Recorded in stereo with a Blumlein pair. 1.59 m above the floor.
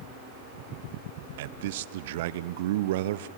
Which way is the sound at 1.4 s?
55° right.